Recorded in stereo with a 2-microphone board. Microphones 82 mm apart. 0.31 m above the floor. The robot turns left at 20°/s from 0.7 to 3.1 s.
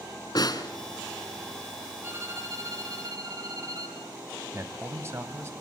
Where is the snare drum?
60° left (ahead or behind), 1.7 m.